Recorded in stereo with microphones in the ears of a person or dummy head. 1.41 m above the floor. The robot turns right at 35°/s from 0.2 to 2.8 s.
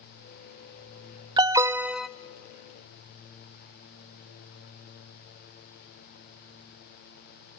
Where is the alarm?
20° right (ahead or behind), 0.5 m; by 2.1 s centre (ahead or behind), 0.5 m.